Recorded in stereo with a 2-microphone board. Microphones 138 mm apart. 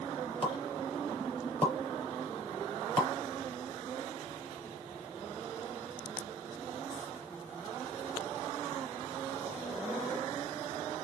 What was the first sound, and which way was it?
A pop, 45° left (ahead or behind).